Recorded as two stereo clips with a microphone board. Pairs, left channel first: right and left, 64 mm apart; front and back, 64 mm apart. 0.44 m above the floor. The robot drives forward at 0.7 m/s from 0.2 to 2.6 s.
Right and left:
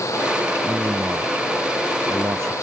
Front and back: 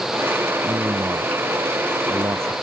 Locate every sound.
0.6 s a man speaking: 130° left; by 2.5 s 135° left